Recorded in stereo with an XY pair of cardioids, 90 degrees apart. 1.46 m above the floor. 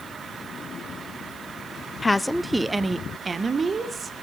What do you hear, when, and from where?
2.0 s a woman speaking: 20° left, 0.7 m; by 4.1 s 45° right, 2 m